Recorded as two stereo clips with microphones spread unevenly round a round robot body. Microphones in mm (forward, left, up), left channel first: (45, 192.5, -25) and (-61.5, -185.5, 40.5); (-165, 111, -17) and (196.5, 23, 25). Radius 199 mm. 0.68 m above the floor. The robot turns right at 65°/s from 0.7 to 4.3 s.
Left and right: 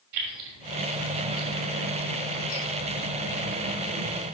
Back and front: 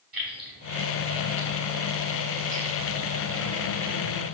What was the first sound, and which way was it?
Keys jangling, 105° right.